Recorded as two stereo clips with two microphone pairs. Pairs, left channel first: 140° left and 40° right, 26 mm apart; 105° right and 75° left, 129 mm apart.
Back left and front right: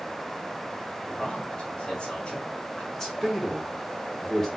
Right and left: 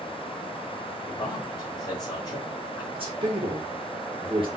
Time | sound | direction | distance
1.0 | a man speaking | 165° right | 2 m
2.9 | a man speaking | 80° left | 1.6 m